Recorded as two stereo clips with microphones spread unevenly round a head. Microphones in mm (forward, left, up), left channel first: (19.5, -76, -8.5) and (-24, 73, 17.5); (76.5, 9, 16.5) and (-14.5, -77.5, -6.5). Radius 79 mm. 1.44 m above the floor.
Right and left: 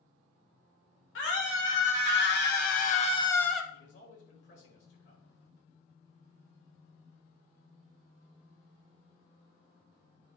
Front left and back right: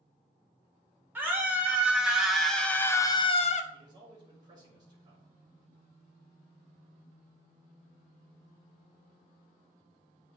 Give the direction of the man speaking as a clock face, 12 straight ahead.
3 o'clock.